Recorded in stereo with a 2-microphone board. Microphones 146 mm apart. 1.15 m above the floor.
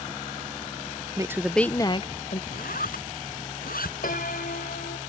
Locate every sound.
1.2 s a woman speaking: 25° right (ahead or behind); by 2.4 s 55° left (ahead or behind)
2.5 s a zipper: 80° left
4.0 s a piano: 85° left